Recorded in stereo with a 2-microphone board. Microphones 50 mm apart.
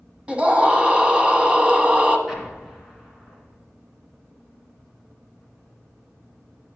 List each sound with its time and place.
0.3 s a scream: 20° right (ahead or behind), 1.2 m
2.3 s an explosion: 10° right (ahead or behind), 2.5 m